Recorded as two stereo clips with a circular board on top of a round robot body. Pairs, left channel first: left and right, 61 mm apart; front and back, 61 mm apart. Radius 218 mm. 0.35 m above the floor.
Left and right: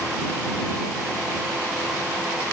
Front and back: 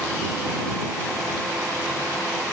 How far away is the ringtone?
No ringtone in this recording.